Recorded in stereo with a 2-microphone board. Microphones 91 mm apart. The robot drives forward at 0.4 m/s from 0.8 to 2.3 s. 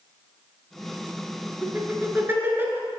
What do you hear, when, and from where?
1.6 s laughter: 25° right (ahead or behind), 1.7 m